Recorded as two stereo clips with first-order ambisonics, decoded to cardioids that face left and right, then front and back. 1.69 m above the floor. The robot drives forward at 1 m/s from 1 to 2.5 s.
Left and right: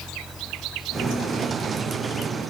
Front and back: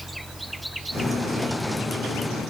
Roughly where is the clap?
I don't hear a clap.